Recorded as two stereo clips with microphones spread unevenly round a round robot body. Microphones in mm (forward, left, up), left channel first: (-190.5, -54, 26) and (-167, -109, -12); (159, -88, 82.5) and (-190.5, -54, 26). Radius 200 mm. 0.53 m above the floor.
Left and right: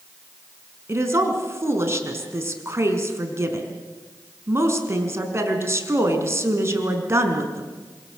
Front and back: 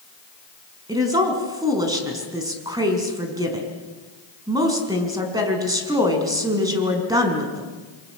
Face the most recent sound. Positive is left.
turn(degrees=-105)